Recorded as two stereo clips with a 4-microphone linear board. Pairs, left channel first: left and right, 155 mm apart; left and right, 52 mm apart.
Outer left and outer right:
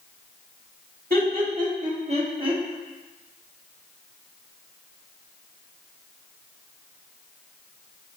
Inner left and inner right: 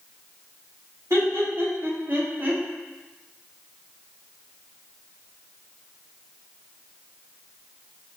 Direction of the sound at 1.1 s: 60° right (ahead or behind).